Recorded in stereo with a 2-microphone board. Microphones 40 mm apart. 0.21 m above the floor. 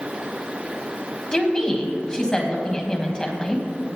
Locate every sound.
1.3 s a woman speaking: 20° left (ahead or behind), 1.4 m